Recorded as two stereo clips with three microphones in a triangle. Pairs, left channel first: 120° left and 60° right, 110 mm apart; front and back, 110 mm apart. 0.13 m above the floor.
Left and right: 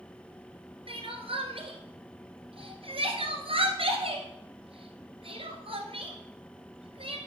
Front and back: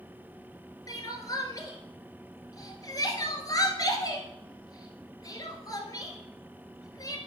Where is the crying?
50° right, 1.5 m.